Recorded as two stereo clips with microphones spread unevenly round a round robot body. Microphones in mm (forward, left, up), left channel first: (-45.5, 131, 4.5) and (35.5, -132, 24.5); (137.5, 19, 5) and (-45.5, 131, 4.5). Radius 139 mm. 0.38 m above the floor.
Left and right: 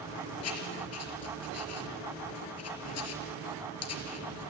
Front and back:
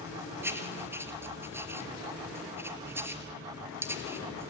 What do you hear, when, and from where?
0.4 s writing: 70° left, 4 m